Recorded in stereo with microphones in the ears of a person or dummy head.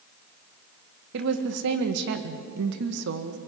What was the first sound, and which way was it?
A woman speaking, 65° right (ahead or behind).